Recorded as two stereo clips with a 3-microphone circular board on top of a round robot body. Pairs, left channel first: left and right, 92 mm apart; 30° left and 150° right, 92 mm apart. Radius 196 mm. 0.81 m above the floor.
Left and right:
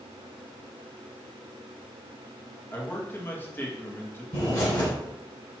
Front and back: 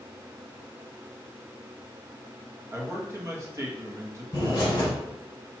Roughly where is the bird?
Left.